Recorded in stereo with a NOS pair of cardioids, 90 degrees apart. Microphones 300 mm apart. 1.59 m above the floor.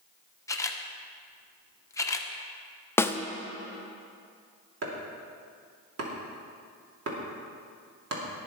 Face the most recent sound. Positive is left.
turn(degrees=-55)